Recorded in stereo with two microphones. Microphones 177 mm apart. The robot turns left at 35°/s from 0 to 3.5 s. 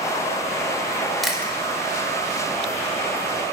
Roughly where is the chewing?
Centre.